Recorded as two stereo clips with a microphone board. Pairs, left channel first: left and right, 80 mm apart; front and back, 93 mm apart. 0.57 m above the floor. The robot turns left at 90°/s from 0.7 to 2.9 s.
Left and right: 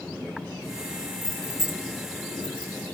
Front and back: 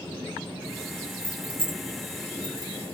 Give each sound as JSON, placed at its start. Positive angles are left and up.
{"t": 1.2, "sound": "keys jangling", "azimuth_deg": -140, "distance_m": 1.1}